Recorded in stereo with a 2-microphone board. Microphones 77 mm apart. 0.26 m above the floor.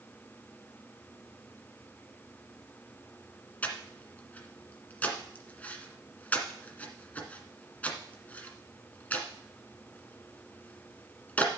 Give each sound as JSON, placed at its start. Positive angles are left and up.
{"t": 3.6, "sound": "breathing", "side_deg": 20, "distance_m": 1.7}